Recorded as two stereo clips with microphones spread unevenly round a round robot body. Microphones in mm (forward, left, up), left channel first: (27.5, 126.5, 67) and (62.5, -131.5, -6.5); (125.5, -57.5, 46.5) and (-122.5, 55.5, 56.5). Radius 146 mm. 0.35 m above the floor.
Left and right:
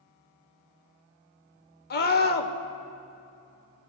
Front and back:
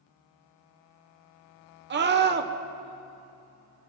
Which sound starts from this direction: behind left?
A scream, at 1.9 s.